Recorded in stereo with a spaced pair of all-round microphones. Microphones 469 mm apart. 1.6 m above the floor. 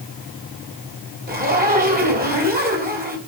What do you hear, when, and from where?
1.3 s a zipper: 20° right (ahead or behind), 3 m